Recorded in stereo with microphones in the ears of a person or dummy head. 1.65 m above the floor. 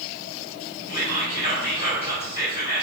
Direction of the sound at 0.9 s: 50° left (ahead or behind).